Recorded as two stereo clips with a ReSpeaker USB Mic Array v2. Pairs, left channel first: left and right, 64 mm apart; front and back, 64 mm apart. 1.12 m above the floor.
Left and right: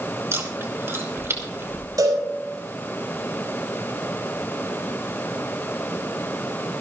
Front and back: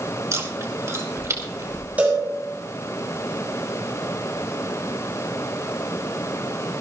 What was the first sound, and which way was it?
Chewing, 140° right.